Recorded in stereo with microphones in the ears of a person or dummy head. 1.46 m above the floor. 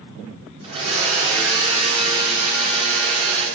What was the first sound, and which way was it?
A blender, 45° right (ahead or behind).